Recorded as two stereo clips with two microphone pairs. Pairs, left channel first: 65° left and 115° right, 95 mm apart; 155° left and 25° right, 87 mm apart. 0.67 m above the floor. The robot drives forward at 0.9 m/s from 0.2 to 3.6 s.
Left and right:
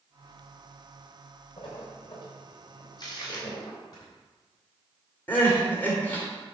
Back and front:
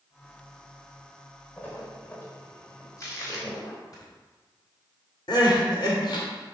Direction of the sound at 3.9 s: 110° left.